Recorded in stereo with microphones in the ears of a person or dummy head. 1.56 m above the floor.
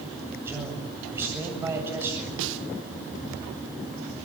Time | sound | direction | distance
0.4 | a man speaking | 15° right (ahead or behind) | 7.5 m
2.4 | a snare drum | 70° right (ahead or behind) | 1.7 m